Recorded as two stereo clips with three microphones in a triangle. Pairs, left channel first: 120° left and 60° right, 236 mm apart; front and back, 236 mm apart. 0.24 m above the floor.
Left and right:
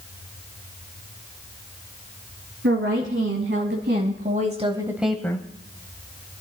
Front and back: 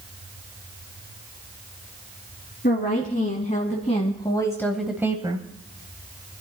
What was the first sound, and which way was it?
A woman speaking, 45° right.